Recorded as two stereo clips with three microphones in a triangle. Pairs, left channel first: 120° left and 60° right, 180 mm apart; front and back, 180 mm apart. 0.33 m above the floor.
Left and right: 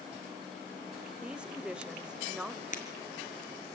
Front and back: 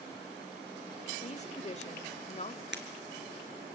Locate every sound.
1.2 s a woman speaking: 25° left, 1.3 m
2.7 s breaking glass: 165° left, 3.5 m